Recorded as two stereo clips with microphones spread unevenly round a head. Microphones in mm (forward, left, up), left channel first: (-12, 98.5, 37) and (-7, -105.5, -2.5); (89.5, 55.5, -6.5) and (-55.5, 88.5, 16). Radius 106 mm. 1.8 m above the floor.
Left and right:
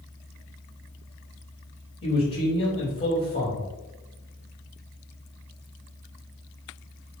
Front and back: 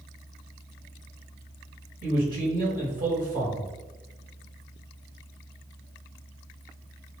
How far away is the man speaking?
About 2.0 m.